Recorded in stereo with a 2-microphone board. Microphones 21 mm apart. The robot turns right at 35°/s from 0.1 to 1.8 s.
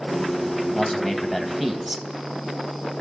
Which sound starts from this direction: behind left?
A man speaking, at 0.7 s.